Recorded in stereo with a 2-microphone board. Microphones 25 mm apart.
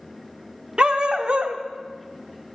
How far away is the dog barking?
About 0.7 m.